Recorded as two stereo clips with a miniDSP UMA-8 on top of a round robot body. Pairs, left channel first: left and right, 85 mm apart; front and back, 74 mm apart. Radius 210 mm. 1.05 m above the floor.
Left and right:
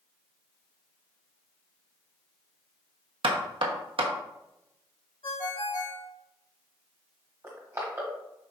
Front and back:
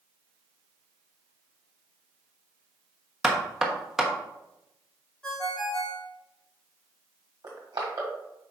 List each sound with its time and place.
3.2 s knocking: 95° right, 1.2 m
5.2 s a ringtone: 85° left, 2.5 m
7.4 s crushing: 150° right, 1.3 m